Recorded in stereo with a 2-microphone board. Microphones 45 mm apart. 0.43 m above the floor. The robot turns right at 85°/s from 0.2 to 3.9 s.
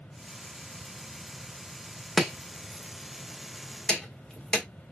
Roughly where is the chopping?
Centre.